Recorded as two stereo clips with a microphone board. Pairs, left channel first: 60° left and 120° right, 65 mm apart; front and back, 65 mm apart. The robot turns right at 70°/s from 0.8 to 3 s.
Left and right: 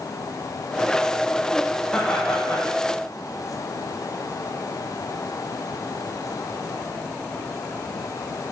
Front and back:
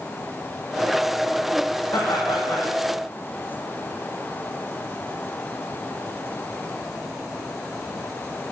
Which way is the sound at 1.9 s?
5° right.